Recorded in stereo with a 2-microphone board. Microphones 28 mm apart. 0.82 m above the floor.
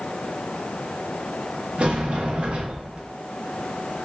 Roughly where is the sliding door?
Right.